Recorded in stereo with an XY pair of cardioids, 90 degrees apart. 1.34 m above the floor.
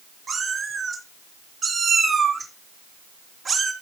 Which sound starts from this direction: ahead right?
A cat meowing, at 0.3 s.